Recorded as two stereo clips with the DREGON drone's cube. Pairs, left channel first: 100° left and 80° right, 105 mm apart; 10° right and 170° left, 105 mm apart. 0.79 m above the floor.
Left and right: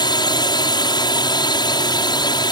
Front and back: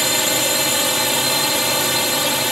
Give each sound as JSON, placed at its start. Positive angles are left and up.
{"t": 0.0, "sound": "a drone", "azimuth_deg": 80}